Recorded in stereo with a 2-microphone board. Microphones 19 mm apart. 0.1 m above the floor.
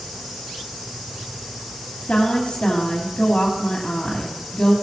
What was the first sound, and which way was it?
A woman speaking, 50° left (ahead or behind).